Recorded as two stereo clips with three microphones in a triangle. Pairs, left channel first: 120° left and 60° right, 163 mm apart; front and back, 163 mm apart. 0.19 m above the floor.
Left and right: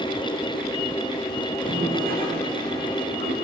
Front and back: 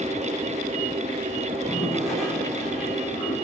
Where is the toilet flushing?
90° right, 8.5 m.